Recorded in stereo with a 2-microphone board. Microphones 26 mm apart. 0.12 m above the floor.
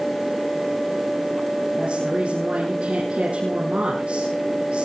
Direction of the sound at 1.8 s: 50° right (ahead or behind).